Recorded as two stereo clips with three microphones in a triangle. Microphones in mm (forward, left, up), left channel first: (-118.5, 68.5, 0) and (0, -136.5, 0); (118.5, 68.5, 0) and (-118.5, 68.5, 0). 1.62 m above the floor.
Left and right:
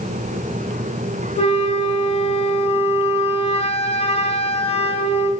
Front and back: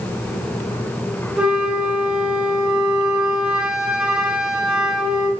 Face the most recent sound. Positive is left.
turn(degrees=95)